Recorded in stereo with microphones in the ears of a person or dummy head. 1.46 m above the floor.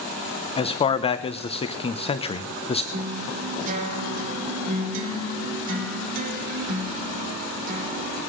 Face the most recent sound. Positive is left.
turn(degrees=-45)  # may be behind; listen again after turning